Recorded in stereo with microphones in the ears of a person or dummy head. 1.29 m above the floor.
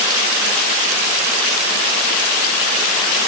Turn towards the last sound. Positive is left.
No sound to turn to.